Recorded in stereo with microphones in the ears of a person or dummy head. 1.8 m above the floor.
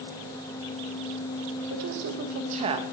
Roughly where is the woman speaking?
Right.